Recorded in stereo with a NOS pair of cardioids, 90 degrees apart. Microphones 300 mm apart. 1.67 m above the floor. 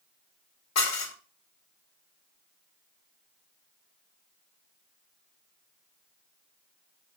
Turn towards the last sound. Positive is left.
turn(degrees=60)